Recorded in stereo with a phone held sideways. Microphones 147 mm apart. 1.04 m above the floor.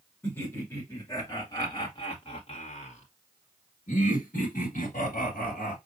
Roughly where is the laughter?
Centre.